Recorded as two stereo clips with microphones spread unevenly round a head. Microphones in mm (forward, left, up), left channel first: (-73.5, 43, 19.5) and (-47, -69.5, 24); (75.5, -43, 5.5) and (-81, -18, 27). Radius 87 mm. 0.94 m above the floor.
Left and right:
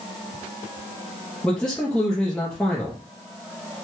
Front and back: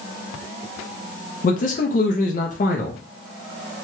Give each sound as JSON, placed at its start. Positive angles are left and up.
{"t": 1.4, "sound": "a man speaking", "azimuth_deg": 20, "distance_m": 0.5}